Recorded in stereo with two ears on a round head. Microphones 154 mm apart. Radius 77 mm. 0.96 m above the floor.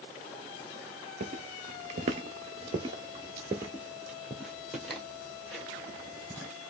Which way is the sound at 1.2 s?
45° right (ahead or behind).